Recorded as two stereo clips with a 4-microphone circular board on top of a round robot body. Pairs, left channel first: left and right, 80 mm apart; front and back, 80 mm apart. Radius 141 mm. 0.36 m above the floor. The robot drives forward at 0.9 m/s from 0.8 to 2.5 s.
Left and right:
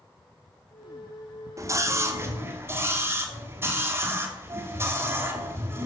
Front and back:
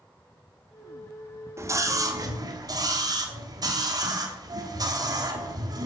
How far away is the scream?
About 1.9 m.